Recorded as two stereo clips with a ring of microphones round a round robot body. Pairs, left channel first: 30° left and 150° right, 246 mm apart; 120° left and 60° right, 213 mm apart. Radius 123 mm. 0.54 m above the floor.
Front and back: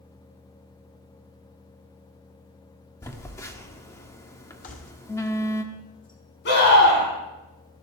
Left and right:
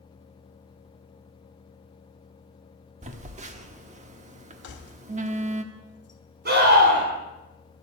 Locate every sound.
3.0 s a phone buzzing: 40° right, 1.2 m
4.6 s keys jangling: 85° left, 2.5 m
6.5 s a scream: 20° right, 6.5 m